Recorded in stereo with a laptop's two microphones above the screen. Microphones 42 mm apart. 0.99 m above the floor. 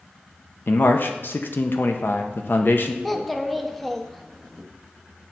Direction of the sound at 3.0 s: 5° left (ahead or behind).